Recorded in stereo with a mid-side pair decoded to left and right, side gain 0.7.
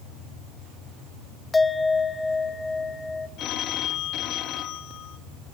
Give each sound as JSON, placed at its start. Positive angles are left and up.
{"t": 1.5, "sound": "a bell", "azimuth_deg": 15, "distance_m": 0.8}
{"t": 3.4, "sound": "a phone ringing", "azimuth_deg": 50, "distance_m": 1.3}